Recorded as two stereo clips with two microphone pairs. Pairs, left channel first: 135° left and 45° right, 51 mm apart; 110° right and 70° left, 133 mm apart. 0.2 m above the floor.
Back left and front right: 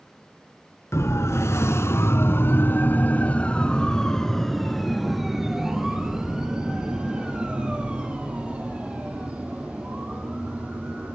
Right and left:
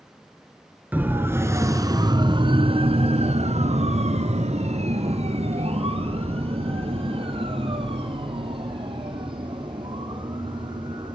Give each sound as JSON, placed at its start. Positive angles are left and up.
{"t": 0.9, "sound": "a siren", "azimuth_deg": 145, "distance_m": 2.0}